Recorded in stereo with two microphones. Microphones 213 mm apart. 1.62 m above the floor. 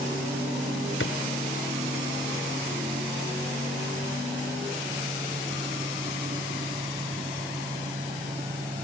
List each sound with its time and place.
1.0 s a drawer: 75° left (ahead or behind)